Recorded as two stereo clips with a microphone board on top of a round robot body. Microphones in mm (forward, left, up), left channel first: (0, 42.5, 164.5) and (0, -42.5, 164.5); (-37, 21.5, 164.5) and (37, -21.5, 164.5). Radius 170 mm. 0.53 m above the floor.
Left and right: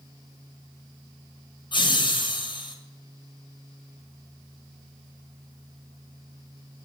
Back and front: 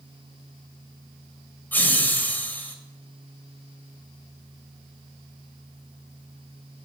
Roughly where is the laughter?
Left.